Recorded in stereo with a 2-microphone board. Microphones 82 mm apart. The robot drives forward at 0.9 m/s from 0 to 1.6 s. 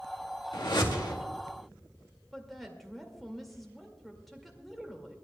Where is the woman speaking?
Centre (ahead or behind), 2 m.